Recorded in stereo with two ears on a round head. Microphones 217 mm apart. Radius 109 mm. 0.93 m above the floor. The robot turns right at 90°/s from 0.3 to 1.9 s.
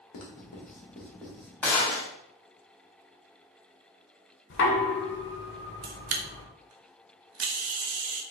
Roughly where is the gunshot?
Centre.